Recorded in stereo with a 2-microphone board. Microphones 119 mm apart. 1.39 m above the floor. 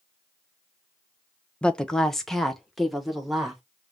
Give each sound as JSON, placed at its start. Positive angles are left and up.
{"t": 1.6, "sound": "a woman speaking", "side_deg": 10, "distance_m": 0.5}